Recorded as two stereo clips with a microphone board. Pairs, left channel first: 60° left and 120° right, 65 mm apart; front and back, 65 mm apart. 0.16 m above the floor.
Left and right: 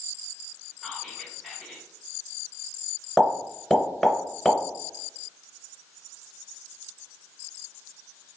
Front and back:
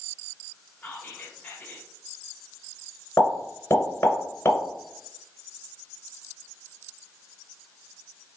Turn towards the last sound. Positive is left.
turn(degrees=-35)